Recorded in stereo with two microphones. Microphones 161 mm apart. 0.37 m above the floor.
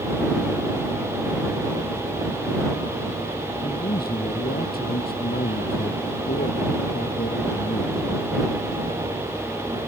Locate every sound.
3.6 s a man speaking: 75° left (ahead or behind)